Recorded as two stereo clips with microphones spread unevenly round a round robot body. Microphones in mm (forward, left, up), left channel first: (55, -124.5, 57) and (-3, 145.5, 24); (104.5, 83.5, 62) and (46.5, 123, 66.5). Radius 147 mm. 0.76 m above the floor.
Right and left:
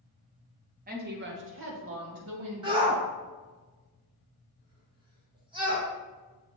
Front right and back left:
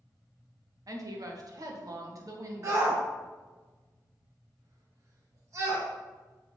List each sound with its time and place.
0.9 s a woman speaking: 140° left, 1.2 m; by 3.0 s 110° left, 2 m
2.6 s a shout: 160° left, 1.2 m